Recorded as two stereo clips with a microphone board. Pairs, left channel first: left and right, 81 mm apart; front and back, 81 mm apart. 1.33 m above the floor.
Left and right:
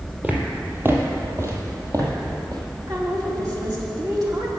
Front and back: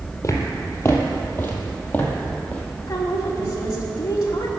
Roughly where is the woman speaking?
Ahead right.